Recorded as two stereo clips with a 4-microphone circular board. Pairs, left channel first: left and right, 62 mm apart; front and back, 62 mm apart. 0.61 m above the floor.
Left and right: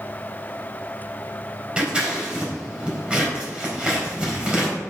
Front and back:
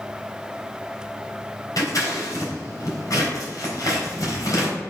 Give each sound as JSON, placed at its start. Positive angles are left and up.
{"t": 1.8, "sound": "scissors", "azimuth_deg": -20, "distance_m": 4.0}